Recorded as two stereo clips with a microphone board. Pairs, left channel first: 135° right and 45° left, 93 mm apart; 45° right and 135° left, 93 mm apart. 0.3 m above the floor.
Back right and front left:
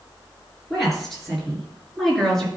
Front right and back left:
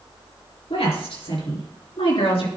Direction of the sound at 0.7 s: 45° right.